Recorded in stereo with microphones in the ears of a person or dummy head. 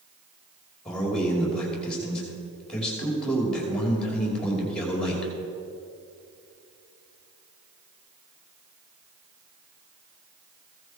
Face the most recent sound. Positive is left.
turn(degrees=10)  # may be behind; listen again after turning